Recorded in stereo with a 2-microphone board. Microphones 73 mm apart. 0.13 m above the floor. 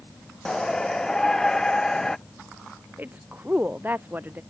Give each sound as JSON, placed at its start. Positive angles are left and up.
{"t": 0.5, "sound": "a shout", "side_deg": 5}
{"t": 3.0, "sound": "a woman speaking", "side_deg": -25}